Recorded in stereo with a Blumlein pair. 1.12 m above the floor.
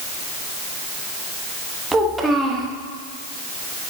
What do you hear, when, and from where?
1.9 s a child speaking: 10° right, 1.1 m